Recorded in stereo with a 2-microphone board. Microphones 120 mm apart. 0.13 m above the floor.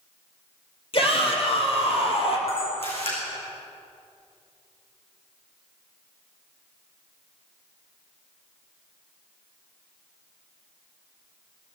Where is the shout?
50° left (ahead or behind), 4 m.